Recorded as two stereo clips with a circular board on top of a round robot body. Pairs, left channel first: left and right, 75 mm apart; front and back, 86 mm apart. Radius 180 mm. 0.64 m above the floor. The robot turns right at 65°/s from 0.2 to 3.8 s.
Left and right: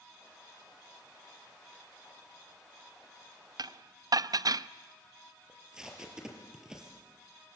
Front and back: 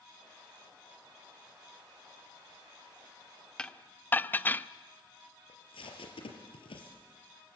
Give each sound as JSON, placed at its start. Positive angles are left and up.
{"t": 3.6, "sound": "dishes clattering", "azimuth_deg": -80, "distance_m": 0.7}
{"t": 5.5, "sound": "tape being pulled", "azimuth_deg": -10, "distance_m": 4.0}